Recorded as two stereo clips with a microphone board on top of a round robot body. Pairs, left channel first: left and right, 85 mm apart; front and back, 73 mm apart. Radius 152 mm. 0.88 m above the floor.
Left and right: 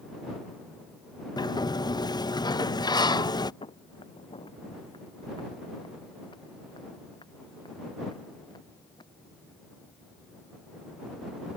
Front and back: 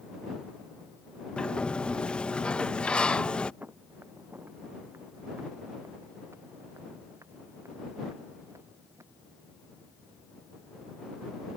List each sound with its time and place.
1.4 s a sliding door: 75° left
3.6 s footsteps: 110° left; by 9.0 s 125° left